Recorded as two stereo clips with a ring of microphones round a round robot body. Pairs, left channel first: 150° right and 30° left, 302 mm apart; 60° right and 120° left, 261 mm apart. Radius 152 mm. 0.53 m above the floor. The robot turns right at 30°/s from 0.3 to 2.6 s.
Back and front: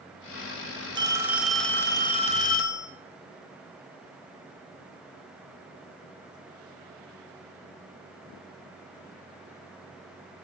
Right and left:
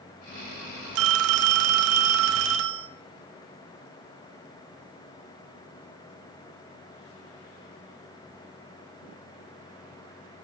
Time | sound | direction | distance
0.9 | a phone ringing | 105° left | 0.5 m